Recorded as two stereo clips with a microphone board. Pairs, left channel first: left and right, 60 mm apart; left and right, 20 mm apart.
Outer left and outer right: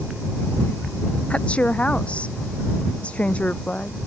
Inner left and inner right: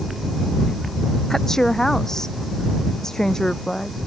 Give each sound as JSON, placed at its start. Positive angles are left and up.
{"t": 1.3, "sound": "a woman speaking", "side_deg": 20}